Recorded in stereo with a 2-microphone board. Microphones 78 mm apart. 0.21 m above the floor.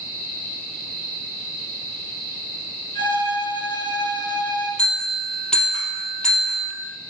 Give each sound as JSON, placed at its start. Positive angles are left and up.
{"t": 3.0, "sound": "a violin", "side_deg": 60, "distance_m": 2.0}
{"t": 4.8, "sound": "a bell", "side_deg": 10, "distance_m": 3.0}